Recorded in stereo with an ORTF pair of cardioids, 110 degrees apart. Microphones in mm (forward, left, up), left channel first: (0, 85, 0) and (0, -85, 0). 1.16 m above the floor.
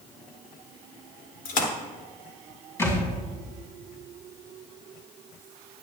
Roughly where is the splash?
Ahead left.